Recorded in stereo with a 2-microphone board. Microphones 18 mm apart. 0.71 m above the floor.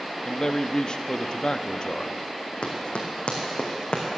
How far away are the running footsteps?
About 2.5 m.